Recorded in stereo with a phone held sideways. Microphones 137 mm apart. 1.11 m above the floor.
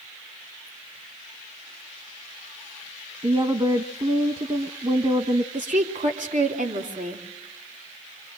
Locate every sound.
3.2 s a woman speaking: 35° right (ahead or behind), 1.1 m
5.5 s a woman speaking: 65° right (ahead or behind), 3 m